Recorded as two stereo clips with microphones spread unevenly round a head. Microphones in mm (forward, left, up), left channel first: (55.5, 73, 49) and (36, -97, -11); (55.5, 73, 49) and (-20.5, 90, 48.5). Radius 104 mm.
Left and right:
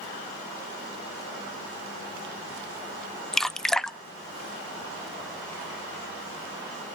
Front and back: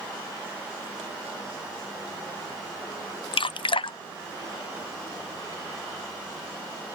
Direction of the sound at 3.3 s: 5° right.